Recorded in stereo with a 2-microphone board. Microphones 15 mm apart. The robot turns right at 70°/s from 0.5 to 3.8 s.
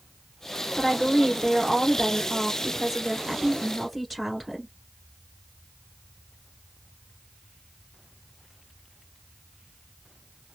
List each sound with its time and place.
0.8 s a woman speaking: 155° left, 1.6 m; by 4.7 s 10° left, 1.6 m